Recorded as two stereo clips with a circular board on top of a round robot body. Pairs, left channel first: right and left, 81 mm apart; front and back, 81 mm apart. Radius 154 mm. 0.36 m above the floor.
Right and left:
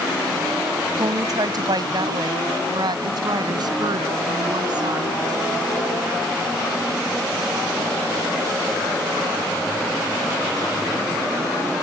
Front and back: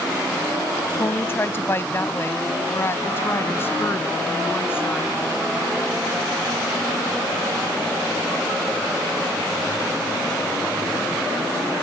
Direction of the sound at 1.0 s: 60° left.